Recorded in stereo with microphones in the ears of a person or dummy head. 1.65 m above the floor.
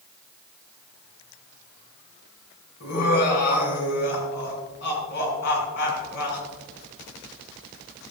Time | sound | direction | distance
2.8 | laughter | 60° left (ahead or behind) | 6 m